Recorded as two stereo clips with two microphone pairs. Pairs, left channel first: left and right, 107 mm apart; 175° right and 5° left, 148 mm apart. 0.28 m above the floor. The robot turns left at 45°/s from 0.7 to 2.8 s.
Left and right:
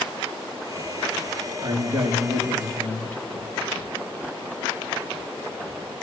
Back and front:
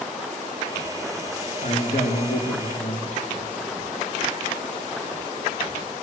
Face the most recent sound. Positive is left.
turn(degrees=165)